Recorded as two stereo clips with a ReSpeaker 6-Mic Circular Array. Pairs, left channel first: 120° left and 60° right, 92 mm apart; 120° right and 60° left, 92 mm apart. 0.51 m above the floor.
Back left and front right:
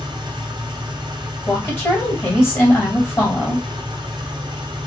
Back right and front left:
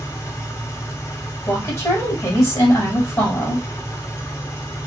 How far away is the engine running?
About 0.9 m.